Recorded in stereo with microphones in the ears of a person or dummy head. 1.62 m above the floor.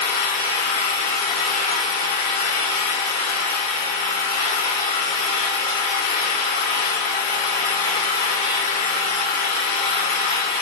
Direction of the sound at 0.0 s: 45° left (ahead or behind).